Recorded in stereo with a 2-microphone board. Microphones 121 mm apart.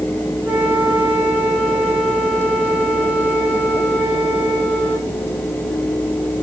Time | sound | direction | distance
0.5 | a flute | 10° right (ahead or behind) | 5 m